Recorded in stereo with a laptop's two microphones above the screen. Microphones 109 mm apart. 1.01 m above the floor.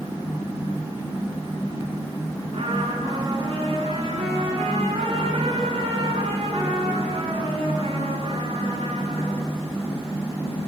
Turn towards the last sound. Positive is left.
turn(degrees=-55)  # may be behind; listen again after turning